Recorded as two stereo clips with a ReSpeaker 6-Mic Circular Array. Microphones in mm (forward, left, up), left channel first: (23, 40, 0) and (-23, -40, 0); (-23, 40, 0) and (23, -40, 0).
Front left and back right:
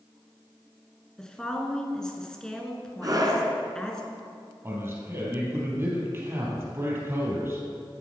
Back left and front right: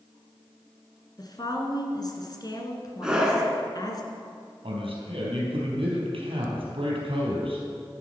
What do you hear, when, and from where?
1.2 s a woman speaking: 140° left, 1.7 m
3.0 s a scream: 135° right, 2 m
4.6 s a man speaking: 60° right, 3.5 m